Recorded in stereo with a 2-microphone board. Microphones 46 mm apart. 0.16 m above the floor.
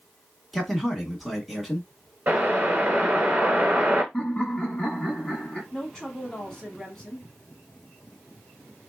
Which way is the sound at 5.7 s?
10° left (ahead or behind).